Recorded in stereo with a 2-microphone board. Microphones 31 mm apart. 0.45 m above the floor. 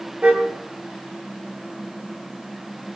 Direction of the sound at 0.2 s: 40° right (ahead or behind).